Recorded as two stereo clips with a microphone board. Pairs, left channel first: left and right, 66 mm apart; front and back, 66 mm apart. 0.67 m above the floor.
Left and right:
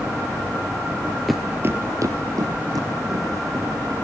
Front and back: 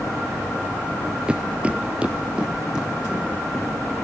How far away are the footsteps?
About 0.6 m.